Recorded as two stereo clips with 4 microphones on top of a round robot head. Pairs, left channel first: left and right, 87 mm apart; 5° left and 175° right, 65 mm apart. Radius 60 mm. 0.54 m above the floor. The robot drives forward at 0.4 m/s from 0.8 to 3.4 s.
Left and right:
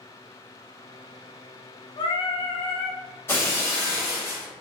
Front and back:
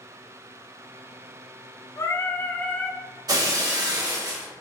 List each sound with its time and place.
2.0 s singing: 55° left, 0.7 m; by 3.0 s 90° left, 0.6 m
3.3 s breaking glass: 160° left, 0.8 m